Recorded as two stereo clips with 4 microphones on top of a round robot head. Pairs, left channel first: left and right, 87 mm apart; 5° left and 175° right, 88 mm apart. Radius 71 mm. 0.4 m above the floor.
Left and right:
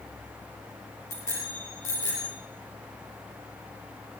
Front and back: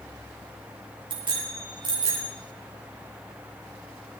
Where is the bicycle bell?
155° left, 8 m; by 2.3 s 150° left, 7.5 m.